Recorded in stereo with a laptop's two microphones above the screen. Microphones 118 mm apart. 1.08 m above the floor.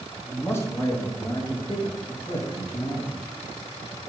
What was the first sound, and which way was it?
A man speaking, 20° left (ahead or behind).